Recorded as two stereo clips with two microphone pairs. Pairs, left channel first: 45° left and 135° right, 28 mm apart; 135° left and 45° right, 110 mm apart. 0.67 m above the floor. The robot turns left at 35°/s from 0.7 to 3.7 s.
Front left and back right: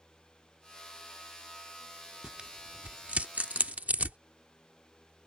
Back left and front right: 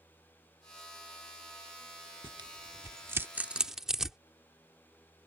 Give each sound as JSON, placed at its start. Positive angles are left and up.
{"t": 2.2, "sound": "tearing paper", "azimuth_deg": -75}